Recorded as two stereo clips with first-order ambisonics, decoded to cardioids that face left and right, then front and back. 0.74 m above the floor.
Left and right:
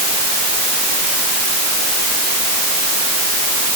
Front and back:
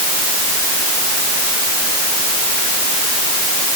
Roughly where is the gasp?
I don't hear a gasp.